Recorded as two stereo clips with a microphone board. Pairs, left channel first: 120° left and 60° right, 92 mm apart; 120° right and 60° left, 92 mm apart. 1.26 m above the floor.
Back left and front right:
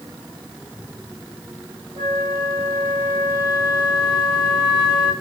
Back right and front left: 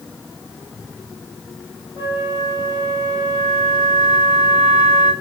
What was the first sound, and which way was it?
A flute, 70° right.